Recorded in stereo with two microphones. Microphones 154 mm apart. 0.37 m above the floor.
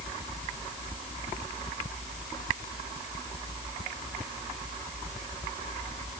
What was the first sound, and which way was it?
Only background noise.